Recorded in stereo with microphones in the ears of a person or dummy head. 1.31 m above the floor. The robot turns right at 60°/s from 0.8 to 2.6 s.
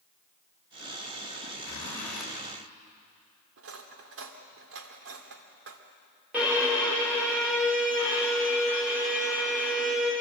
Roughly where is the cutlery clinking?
Right.